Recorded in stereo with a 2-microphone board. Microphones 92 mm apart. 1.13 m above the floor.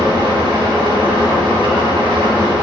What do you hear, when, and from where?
0.0 s an engine running: 70° right (ahead or behind), 4.5 m